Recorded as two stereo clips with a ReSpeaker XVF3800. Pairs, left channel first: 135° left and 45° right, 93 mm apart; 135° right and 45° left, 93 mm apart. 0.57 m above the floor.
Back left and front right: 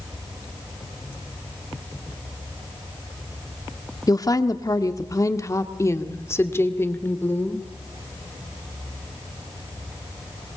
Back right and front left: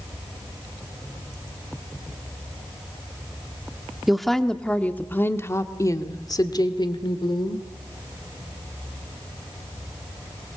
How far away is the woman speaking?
About 1.4 m.